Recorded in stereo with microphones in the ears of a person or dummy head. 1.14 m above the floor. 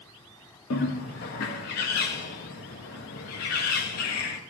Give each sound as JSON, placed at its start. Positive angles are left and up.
{"t": 0.7, "sound": "a bird", "side_deg": 55, "distance_m": 1.0}